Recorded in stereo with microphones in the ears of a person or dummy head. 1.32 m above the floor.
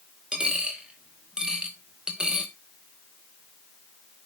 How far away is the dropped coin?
About 1.2 m.